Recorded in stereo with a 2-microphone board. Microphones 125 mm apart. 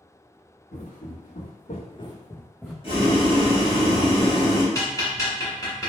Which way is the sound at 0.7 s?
85° left.